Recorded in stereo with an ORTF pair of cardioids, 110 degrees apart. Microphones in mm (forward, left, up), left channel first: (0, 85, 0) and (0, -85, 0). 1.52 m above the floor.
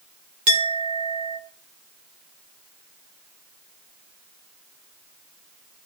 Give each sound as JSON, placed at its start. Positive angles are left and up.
{"t": 0.5, "sound": "a clink", "azimuth_deg": -45, "distance_m": 3.5}